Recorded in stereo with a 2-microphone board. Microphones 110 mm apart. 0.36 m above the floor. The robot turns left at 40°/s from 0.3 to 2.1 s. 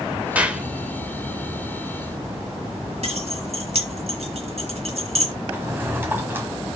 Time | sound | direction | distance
0.3 | a clap | 15° right (ahead or behind) | 0.8 m
3.0 | keys jangling | 70° right (ahead or behind) | 1.6 m
5.5 | a drawer | 20° right (ahead or behind) | 1.3 m